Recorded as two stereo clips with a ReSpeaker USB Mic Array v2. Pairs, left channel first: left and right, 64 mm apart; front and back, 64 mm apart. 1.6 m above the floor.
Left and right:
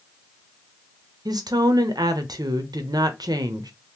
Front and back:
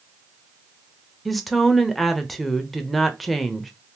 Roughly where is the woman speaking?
Right.